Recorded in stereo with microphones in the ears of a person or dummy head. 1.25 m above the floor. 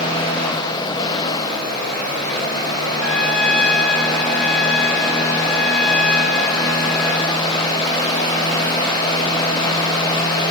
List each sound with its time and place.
3.0 s a trumpet: 55° left (ahead or behind), 2 m